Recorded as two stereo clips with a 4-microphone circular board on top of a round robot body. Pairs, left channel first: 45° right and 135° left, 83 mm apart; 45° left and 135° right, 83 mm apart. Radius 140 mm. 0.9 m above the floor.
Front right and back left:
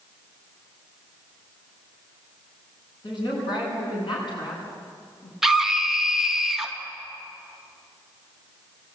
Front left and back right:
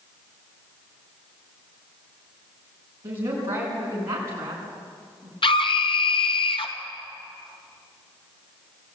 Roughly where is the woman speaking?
Right.